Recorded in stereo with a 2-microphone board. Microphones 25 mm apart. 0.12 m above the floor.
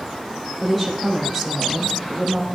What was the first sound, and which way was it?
A woman speaking, 10° left (ahead or behind).